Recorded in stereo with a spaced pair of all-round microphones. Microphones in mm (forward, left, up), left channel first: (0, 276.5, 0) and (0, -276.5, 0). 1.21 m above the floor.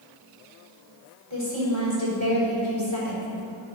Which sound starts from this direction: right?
A woman speaking, at 1.3 s.